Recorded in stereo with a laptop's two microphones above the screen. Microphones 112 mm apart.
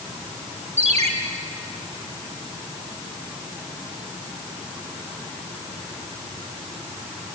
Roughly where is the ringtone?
Right.